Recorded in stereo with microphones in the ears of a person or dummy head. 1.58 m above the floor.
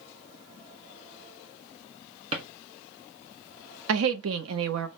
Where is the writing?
I don't hear writing.